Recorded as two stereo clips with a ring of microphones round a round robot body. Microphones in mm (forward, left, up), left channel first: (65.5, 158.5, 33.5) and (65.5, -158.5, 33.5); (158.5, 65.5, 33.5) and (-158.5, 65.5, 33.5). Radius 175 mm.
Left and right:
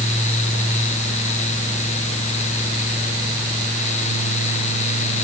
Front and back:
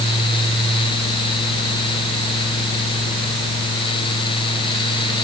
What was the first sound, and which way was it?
Only background noise.